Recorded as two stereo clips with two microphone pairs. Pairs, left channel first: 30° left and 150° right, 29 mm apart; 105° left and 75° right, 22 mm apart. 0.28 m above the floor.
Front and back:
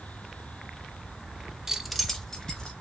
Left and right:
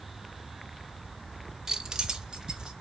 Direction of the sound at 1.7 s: 105° right.